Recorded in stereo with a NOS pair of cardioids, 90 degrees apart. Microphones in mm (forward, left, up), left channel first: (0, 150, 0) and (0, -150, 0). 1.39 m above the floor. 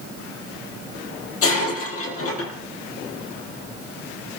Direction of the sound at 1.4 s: 55° left.